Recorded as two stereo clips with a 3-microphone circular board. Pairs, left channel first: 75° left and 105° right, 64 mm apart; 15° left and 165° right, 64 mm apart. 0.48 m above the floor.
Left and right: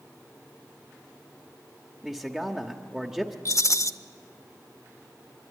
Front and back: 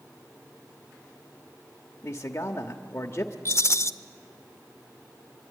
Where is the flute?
No flute in this recording.